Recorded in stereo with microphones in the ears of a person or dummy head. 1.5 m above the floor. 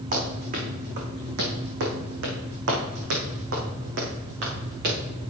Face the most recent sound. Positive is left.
turn(degrees=-55)  # may be behind; listen again after turning